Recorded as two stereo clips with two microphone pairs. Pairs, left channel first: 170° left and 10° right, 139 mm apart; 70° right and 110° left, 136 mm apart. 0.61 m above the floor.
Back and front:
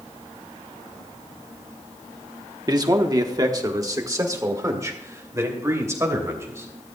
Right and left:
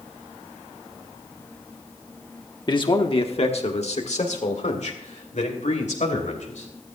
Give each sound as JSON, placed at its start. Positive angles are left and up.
{"t": 2.7, "sound": "a man speaking", "azimuth_deg": -45, "distance_m": 1.2}